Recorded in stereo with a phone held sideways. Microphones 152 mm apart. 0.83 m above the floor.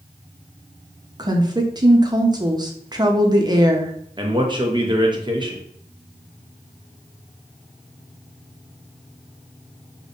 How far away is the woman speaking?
About 0.6 m.